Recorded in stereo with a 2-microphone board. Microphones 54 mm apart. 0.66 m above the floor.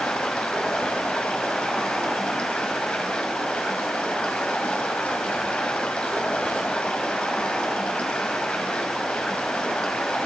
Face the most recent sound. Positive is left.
turn(degrees=20)  # may be behind; listen again after turning